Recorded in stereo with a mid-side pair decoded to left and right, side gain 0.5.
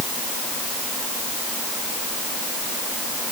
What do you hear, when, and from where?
Only background noise.